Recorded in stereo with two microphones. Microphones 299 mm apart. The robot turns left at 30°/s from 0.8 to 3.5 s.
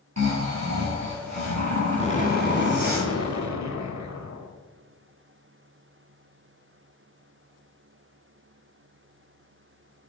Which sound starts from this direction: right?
Snoring, at 0.2 s.